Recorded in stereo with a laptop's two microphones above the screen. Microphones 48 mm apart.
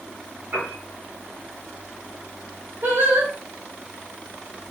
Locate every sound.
0.5 s a piano: 40° right (ahead or behind), 3 m
2.8 s singing: 45° right (ahead or behind), 1.4 m